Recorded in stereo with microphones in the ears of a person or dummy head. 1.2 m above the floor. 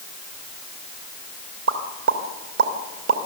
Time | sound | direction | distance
1.7 | a pop | 80° right | 2.5 m